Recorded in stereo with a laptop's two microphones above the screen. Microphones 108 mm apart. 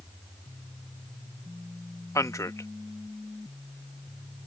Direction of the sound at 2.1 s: 30° left (ahead or behind).